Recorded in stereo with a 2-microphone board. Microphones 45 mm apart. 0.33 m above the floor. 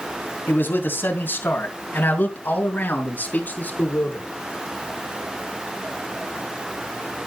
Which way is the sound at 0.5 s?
50° left (ahead or behind).